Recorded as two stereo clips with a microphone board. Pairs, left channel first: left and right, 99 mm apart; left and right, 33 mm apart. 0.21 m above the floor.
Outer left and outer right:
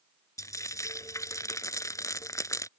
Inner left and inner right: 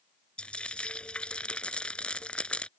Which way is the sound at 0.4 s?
35° left (ahead or behind).